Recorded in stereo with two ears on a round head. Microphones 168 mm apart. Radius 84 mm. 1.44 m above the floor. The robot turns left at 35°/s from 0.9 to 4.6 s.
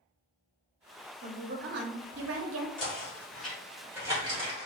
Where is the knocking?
25° left (ahead or behind), 1.4 m; by 4.7 s 35° right (ahead or behind), 1.4 m.